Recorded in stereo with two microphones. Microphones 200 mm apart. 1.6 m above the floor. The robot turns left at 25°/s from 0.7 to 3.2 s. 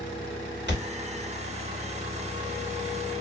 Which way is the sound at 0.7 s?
60° right (ahead or behind).